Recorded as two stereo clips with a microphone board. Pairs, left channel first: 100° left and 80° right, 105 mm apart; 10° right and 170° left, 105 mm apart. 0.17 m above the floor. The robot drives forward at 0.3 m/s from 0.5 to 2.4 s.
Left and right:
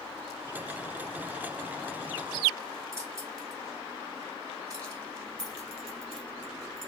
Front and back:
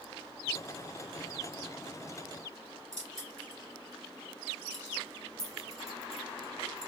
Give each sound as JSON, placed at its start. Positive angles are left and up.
{"t": 2.9, "sound": "keys jangling", "azimuth_deg": -140, "distance_m": 1.9}
{"t": 5.4, "sound": "keys jangling", "azimuth_deg": 135, "distance_m": 1.0}